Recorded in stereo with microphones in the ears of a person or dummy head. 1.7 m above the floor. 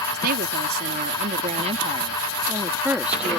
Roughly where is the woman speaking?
Right.